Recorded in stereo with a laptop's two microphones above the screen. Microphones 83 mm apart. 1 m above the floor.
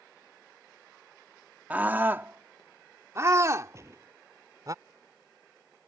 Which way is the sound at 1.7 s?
20° right (ahead or behind).